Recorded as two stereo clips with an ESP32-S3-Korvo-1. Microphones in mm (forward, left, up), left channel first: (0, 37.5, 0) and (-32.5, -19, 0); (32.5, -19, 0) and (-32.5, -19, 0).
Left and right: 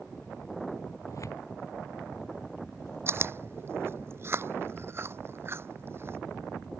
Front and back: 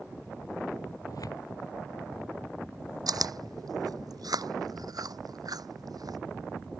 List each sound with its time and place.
1.1 s tearing paper: 25° left
3.1 s chewing: 170° right